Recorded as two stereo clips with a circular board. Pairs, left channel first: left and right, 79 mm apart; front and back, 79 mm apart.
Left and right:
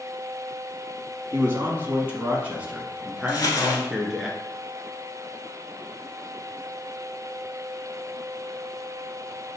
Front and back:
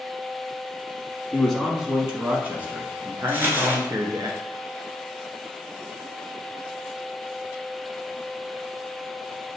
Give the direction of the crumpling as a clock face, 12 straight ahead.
8 o'clock.